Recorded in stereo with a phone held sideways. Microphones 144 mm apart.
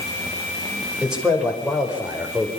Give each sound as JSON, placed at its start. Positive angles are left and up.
{"t": 1.0, "sound": "a man speaking", "side_deg": -5, "distance_m": 5.5}